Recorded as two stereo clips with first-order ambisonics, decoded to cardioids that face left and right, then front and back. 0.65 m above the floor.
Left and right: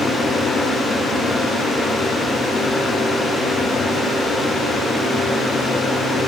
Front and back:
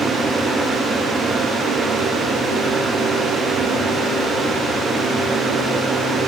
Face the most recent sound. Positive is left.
No sound to turn to.